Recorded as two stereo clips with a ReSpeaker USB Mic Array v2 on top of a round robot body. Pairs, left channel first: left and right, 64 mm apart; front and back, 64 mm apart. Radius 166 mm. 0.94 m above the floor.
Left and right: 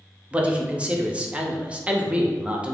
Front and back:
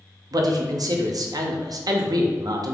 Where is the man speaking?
160° right, 0.7 m.